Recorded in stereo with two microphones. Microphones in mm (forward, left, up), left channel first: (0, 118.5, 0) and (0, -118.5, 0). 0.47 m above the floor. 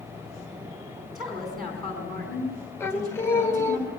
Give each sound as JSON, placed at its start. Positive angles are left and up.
{"t": 1.1, "sound": "a woman speaking", "side_deg": 0, "distance_m": 4.5}
{"t": 2.8, "sound": "singing", "side_deg": 10, "distance_m": 1.9}